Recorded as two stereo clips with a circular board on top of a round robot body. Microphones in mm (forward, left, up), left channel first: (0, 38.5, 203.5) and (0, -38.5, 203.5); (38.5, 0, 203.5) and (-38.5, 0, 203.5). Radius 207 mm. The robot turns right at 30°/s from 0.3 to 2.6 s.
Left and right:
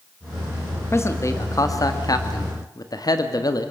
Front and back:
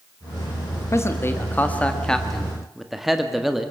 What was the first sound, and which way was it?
A man speaking, 45° left.